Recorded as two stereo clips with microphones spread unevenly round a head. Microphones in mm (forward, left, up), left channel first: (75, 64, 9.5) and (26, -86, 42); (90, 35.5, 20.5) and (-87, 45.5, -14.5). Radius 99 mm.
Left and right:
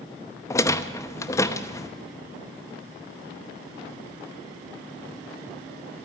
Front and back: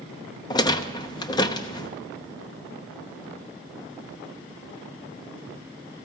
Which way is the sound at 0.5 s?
5° right.